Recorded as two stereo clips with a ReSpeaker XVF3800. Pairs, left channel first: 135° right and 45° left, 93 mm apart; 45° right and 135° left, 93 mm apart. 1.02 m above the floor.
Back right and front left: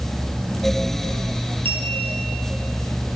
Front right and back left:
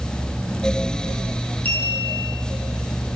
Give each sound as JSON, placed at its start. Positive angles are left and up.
{"t": 1.6, "sound": "a clink", "azimuth_deg": 25, "distance_m": 7.5}